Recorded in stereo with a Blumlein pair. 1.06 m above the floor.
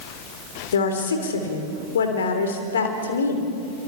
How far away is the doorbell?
I don't hear a doorbell.